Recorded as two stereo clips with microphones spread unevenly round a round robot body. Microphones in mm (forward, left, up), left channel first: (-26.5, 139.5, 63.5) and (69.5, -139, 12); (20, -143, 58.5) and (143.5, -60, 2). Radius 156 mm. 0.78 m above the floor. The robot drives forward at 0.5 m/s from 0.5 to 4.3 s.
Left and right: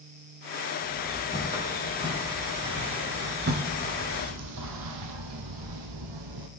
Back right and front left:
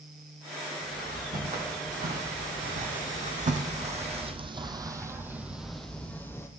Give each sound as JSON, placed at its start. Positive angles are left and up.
{"t": 0.8, "sound": "footsteps", "azimuth_deg": 5, "distance_m": 5.0}